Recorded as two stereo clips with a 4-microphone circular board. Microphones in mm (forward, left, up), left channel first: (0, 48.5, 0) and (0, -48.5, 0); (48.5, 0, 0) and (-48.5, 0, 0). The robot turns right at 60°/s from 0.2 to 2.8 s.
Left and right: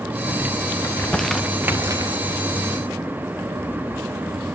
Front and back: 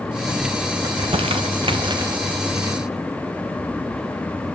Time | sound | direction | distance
0.8 | crumpling | 150° left | 0.7 m